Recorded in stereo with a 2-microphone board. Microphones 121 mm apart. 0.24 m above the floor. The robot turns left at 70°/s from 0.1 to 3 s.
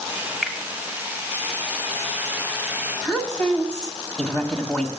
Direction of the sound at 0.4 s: Centre (ahead or behind).